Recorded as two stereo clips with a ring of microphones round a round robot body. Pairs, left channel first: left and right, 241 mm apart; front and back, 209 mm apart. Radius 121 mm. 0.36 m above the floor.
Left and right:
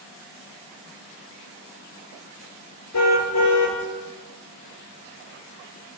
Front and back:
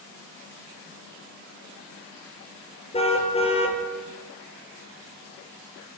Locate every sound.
2.9 s a car horn: 65° left, 3.5 m